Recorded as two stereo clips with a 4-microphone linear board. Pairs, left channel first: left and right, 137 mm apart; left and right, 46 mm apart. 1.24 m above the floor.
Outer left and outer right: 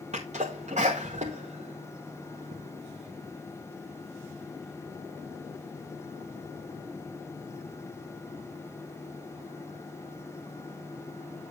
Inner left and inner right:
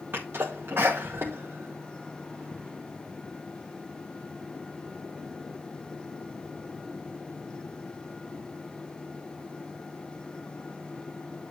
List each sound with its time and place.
0.1 s a sneeze: 55° right (ahead or behind), 1.1 m